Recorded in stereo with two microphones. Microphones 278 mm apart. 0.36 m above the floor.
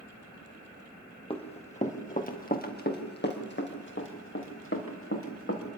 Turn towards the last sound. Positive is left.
turn(degrees=50)  # may be behind; listen again after turning